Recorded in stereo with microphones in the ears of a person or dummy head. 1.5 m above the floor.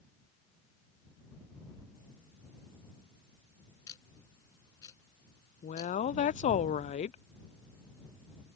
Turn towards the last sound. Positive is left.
turn(degrees=35)  # may be behind; listen again after turning